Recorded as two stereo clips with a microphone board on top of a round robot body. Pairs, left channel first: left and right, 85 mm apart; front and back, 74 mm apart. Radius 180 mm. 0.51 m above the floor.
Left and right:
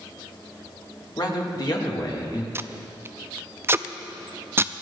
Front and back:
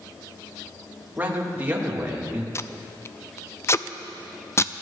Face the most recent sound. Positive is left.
turn(degrees=-40)